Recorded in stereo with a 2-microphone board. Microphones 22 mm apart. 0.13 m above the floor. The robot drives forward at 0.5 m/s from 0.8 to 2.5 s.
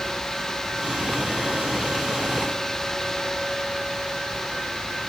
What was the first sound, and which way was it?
Only background noise.